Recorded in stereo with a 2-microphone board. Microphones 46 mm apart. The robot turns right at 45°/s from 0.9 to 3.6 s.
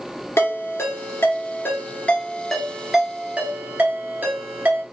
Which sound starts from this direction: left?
A ringtone, at 0.4 s.